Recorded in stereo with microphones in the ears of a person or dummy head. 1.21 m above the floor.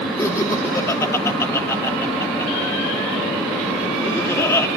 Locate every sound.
0.2 s laughter: 10° left (ahead or behind), 3 m